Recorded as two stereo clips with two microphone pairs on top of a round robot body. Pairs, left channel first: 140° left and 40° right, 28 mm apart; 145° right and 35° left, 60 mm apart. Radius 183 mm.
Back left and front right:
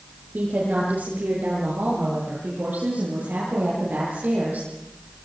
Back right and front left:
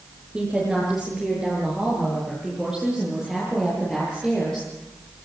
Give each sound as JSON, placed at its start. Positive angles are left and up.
{"t": 0.3, "sound": "a woman speaking", "azimuth_deg": -50, "distance_m": 8.5}